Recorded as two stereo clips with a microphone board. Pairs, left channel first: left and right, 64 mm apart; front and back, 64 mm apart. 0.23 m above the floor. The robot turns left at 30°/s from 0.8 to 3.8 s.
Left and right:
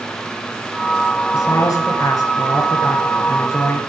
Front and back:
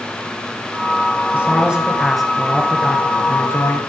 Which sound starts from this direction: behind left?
A man speaking, at 1.3 s.